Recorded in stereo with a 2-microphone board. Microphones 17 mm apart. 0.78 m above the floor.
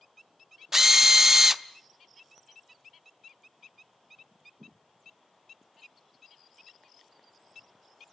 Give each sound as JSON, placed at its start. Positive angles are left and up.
{"t": 0.7, "sound": "a drill", "side_deg": -25, "distance_m": 0.6}